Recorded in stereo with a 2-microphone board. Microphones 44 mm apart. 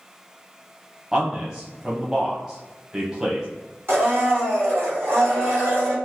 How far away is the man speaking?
About 0.7 m.